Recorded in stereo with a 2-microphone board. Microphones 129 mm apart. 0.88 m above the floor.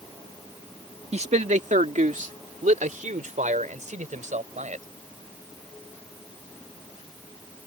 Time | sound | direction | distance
1.1 | a man speaking | 55° right (ahead or behind) | ?